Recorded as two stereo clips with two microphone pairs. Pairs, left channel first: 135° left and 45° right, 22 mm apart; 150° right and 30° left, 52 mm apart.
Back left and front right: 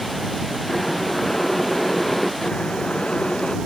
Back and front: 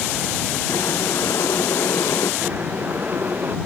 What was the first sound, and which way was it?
Boiling, 145° right.